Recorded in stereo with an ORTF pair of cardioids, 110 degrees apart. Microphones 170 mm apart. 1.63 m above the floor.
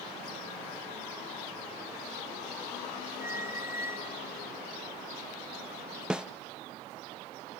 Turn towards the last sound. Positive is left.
turn(degrees=-5)